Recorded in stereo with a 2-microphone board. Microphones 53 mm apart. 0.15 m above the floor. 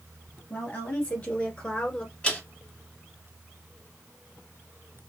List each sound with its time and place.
0.5 s a woman speaking: 30° left (ahead or behind), 2.5 m; by 2.1 s 15° left (ahead or behind), 1.6 m
2.2 s a man speaking: 20° left (ahead or behind), 1.8 m